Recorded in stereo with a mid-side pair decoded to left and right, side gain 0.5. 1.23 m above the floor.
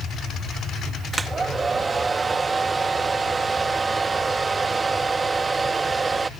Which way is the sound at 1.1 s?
30° right.